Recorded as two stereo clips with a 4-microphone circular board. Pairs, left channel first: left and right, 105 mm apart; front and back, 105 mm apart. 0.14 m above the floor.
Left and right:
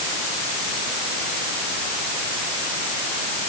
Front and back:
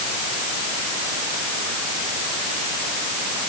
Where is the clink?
I don't hear a clink.